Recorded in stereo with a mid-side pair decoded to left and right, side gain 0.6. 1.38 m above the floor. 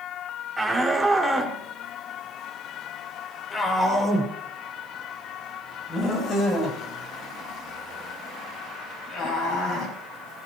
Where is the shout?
5° right, 5.5 m; by 9.9 s 60° left, 12.5 m.